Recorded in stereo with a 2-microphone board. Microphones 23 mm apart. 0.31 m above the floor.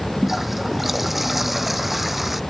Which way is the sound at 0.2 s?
5° right (ahead or behind).